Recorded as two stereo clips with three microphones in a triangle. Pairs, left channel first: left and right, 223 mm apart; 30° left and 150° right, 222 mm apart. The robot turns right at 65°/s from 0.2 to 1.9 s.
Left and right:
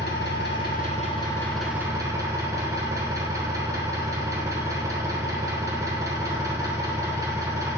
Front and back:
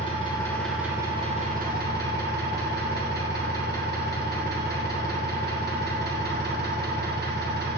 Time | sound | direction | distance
0.0 | an engine running | 85° left | 1.7 m